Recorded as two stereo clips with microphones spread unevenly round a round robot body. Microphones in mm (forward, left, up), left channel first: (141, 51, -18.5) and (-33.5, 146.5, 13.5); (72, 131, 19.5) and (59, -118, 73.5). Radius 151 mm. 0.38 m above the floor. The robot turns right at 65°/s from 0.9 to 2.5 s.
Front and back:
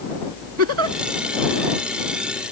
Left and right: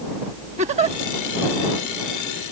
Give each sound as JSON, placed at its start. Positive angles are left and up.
{"t": 0.6, "sound": "a giggle", "azimuth_deg": -165}